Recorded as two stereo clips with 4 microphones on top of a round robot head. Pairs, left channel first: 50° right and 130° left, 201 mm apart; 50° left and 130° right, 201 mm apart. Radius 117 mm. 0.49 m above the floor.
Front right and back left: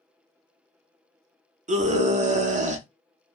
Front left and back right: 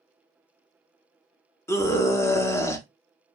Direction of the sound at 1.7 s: 115° left.